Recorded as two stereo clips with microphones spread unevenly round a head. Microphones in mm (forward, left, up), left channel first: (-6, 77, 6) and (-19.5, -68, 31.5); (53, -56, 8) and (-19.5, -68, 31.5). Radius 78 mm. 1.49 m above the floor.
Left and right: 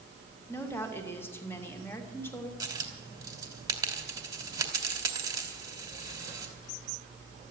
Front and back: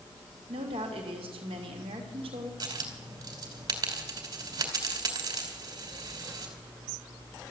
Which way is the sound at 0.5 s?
160° left.